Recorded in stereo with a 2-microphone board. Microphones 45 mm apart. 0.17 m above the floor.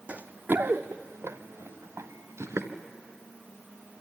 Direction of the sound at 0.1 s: 30° right (ahead or behind).